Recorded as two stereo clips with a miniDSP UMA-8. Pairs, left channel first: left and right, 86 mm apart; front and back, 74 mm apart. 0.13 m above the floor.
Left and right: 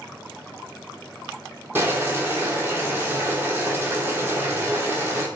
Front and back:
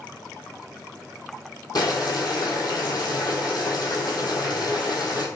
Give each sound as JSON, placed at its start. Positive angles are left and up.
{"t": 1.8, "sound": "boiling", "azimuth_deg": -25, "distance_m": 1.0}